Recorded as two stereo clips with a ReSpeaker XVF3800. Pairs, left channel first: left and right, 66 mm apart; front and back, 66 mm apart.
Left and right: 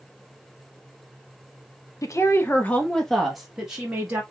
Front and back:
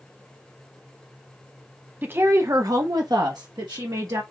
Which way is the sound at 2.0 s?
120° left.